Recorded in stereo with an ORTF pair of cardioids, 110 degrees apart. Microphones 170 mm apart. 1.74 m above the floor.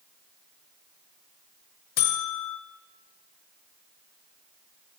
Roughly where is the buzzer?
Ahead left.